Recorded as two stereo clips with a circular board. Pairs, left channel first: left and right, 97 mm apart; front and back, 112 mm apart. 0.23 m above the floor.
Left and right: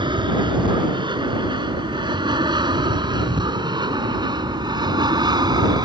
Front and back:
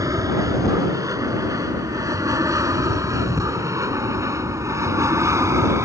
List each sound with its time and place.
0.0 s an aircraft: 120° right